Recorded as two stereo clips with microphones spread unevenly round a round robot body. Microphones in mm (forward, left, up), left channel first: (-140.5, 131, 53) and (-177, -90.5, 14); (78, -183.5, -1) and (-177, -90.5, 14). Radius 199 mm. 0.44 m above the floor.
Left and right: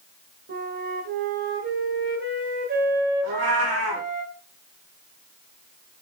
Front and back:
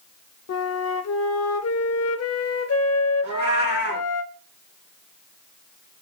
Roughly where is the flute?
Ahead right.